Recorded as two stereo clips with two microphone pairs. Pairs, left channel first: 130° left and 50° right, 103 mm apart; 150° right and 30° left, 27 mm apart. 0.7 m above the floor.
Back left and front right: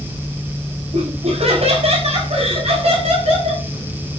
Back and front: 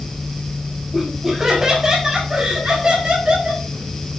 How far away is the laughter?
About 4.5 m.